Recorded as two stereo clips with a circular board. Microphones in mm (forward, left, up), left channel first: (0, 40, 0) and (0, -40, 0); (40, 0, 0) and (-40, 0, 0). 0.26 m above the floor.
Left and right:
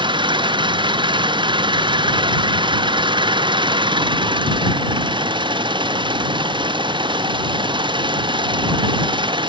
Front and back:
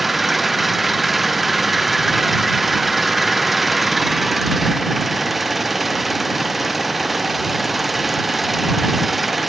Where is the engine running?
95° right.